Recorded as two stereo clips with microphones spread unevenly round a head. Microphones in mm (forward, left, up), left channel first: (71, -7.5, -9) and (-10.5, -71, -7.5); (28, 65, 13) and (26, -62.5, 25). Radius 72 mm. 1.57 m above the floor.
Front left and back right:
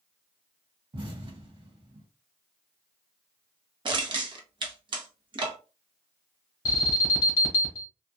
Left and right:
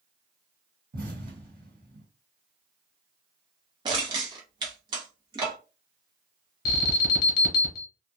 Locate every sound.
0.9 s an explosion: 105° right, 1.5 m
3.9 s crushing: 135° right, 0.9 m
6.7 s an alarm: 105° left, 0.9 m